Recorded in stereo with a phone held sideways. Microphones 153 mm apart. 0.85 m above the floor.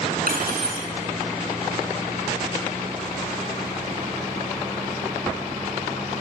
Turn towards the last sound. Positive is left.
turn(degrees=-75)  # may be behind; listen again after turning